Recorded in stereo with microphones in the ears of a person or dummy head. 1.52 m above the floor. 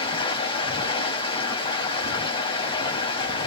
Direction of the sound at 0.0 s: 30° left (ahead or behind).